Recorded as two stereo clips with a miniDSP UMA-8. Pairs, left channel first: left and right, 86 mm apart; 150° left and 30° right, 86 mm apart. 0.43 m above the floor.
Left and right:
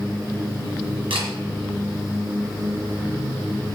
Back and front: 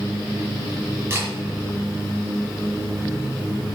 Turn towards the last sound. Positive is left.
turn(degrees=-90)